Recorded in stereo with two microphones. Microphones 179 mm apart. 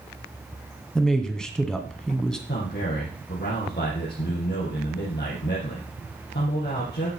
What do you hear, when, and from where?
0.9 s a man speaking: 5° left (ahead or behind), 1.6 m
2.5 s a man speaking: 70° left (ahead or behind), 6 m